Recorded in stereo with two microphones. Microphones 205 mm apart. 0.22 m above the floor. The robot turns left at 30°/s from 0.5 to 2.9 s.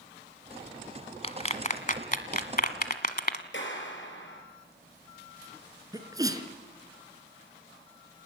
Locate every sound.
1.2 s a clap: 30° left (ahead or behind), 1.5 m; by 3.4 s 50° left (ahead or behind), 1.5 m
3.5 s a clap: 70° left (ahead or behind), 5 m
5.9 s a sneeze: 20° right (ahead or behind), 2.5 m